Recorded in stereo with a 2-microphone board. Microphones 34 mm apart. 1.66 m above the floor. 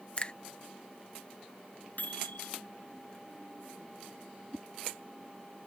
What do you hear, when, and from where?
0.2 s a finger snap: 35° left (ahead or behind)
2.0 s a microwave: 60° left (ahead or behind)
4.5 s a whoosh: 10° left (ahead or behind)